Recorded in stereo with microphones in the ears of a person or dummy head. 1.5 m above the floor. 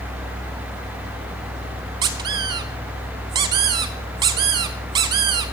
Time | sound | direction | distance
2.0 | a squeak | 20° right (ahead or behind) | 0.7 m